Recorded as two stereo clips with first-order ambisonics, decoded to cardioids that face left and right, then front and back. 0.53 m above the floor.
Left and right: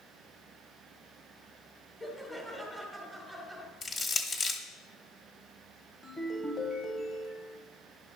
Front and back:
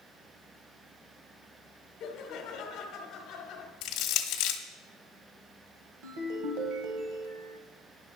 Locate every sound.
2.0 s laughter: 10° right, 1.4 m
3.8 s crushing: 20° left, 1.0 m
6.0 s a ringtone: 170° left, 1.1 m